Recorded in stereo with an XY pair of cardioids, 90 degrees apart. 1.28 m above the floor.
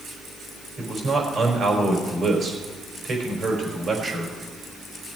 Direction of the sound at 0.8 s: 55° right.